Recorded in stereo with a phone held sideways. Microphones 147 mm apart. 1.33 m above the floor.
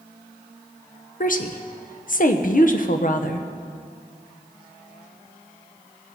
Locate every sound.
1.2 s a woman speaking: 60° left (ahead or behind), 0.8 m